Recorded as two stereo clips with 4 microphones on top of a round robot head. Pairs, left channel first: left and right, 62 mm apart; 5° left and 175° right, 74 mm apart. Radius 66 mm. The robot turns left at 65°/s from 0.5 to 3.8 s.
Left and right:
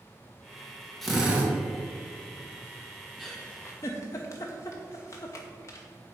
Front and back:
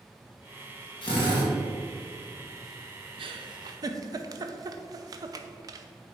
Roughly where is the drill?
Ahead.